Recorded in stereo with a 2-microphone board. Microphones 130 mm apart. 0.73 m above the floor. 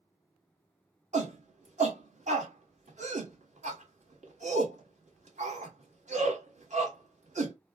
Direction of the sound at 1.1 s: 65° right (ahead or behind).